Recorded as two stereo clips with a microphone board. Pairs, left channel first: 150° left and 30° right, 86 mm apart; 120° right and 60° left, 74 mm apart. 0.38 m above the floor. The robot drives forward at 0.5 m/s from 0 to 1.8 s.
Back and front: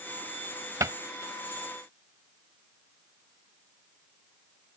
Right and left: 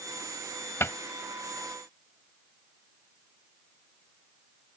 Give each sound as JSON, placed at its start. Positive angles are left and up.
{"t": 0.8, "sound": "a cupboard door", "azimuth_deg": -70}